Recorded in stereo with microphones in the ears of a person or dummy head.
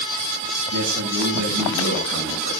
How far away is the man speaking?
About 6.5 m.